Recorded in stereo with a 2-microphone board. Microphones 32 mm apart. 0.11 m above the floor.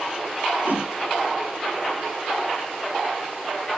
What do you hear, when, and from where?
0.7 s a whoosh: 70° right (ahead or behind), 4.5 m